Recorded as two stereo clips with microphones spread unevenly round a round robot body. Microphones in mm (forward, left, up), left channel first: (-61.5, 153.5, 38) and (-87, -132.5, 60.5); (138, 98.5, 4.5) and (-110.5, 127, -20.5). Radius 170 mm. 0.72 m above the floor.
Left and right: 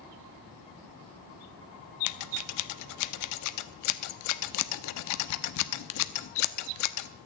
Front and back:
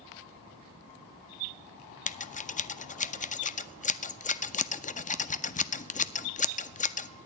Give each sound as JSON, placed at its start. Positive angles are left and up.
{"t": 2.1, "sound": "scissors", "azimuth_deg": 60, "distance_m": 0.6}